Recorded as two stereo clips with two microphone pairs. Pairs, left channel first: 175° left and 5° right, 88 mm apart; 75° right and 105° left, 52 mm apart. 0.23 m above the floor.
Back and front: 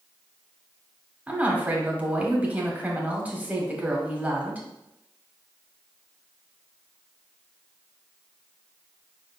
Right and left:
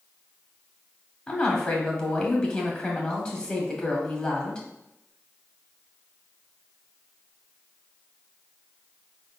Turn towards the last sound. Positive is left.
turn(degrees=-35)